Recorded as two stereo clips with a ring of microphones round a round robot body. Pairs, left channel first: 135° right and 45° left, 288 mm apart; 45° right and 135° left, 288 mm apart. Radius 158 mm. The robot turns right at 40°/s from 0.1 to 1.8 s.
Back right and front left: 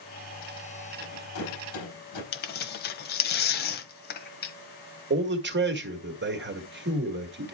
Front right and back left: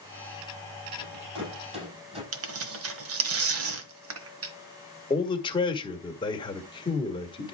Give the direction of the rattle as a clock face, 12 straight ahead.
6 o'clock.